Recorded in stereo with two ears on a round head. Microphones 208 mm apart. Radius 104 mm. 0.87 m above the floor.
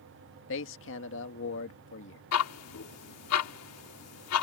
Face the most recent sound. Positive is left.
turn(degrees=75)  # may be behind; listen again after turning